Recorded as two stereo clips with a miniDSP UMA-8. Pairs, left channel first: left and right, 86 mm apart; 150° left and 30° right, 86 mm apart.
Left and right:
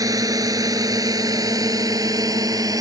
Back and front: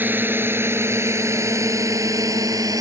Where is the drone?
85° right; by 2.8 s 60° right.